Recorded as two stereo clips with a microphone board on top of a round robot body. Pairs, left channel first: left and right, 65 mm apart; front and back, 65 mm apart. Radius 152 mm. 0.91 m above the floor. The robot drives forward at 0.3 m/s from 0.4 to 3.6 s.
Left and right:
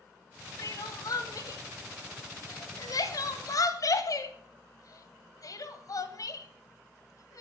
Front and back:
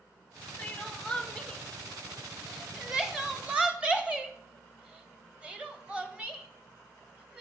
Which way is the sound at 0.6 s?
75° left.